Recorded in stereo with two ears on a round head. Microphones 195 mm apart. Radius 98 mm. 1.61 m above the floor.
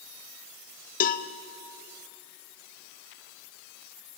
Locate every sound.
1.0 s a cowbell: 40° left (ahead or behind), 0.9 m